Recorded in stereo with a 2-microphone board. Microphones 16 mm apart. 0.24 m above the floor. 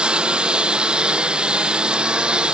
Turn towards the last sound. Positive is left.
turn(degrees=-75)  # may be behind; listen again after turning